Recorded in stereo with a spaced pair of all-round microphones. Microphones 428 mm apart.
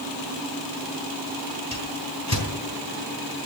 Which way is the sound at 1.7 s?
40° left (ahead or behind).